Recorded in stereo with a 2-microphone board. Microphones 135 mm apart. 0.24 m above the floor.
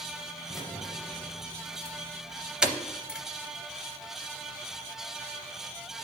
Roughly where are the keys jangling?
Centre.